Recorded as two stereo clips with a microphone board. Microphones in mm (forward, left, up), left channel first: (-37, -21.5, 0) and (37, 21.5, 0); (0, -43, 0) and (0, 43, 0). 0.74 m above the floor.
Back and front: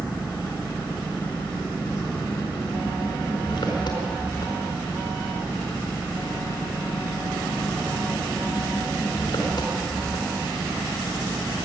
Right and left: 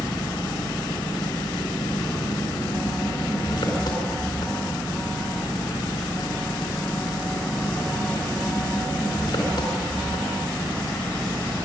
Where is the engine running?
120° right, 4.5 m.